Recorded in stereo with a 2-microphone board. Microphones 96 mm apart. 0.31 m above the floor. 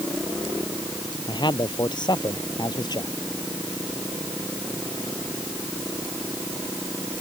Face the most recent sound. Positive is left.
turn(degrees=50)  # may be behind; listen again after turning